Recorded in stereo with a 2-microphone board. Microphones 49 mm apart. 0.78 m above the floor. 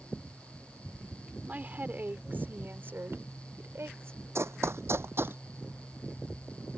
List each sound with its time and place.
1.5 s a woman speaking: 35° right (ahead or behind); by 4.2 s 60° right (ahead or behind)
4.3 s running footsteps: 70° right (ahead or behind); by 5.4 s 50° right (ahead or behind)